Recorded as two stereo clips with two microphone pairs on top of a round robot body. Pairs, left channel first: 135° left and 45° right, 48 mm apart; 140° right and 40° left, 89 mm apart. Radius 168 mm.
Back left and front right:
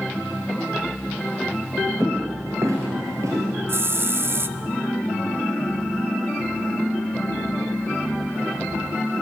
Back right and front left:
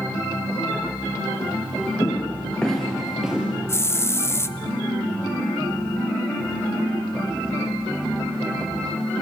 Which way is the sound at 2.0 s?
80° right.